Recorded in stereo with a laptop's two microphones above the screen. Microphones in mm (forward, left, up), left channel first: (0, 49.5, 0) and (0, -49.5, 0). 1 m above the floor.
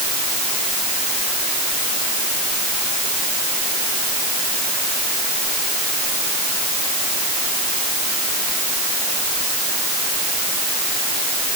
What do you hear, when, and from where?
Only background noise.